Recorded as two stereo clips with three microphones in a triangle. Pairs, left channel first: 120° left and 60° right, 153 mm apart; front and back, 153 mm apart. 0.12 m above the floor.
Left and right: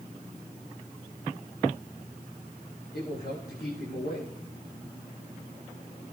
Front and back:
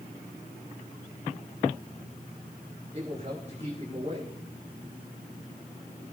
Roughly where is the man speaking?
Behind left.